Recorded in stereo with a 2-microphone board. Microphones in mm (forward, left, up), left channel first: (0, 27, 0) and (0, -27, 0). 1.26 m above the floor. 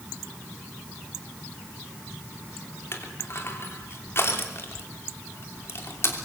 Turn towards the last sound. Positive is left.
turn(degrees=50)  # may be behind; listen again after turning